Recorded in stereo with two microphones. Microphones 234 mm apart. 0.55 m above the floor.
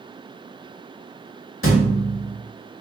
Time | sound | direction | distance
1.6 | a thud | 65° left (ahead or behind) | 0.7 m